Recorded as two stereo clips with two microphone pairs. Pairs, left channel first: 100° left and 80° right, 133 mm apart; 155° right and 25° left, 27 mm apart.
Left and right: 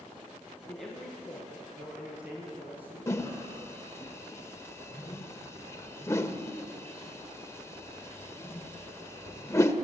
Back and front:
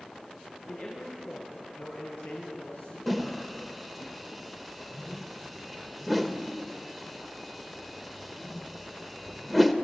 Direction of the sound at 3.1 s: 115° left.